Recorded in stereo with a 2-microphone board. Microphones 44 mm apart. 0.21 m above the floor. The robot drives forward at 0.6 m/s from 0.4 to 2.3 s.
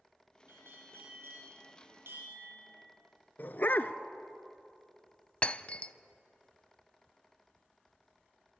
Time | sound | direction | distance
0.5 | a bell | 60° right (ahead or behind) | 6.5 m
3.4 | a dog barking | 50° left (ahead or behind) | 0.8 m
5.4 | breaking glass | 30° left (ahead or behind) | 0.5 m